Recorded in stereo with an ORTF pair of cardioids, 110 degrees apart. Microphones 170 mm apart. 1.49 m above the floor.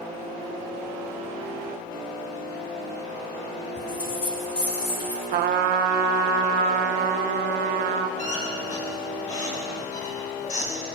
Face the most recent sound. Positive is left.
turn(degrees=50)